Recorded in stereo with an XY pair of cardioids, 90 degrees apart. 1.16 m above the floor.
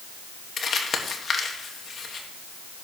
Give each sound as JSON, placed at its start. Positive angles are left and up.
{"t": 0.6, "sound": "crumpling", "azimuth_deg": 50, "distance_m": 1.8}